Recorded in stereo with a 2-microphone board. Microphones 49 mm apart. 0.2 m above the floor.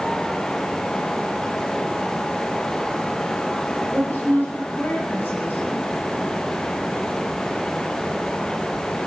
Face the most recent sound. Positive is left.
turn(degrees=45)  # may be behind; listen again after turning